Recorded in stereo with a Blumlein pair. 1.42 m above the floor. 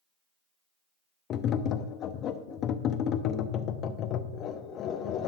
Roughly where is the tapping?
Ahead left.